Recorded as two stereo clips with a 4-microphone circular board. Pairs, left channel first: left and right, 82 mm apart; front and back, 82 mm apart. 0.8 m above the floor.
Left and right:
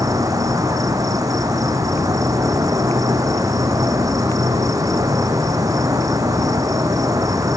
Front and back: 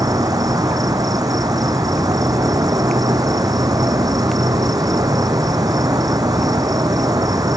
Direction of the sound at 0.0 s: 135° right.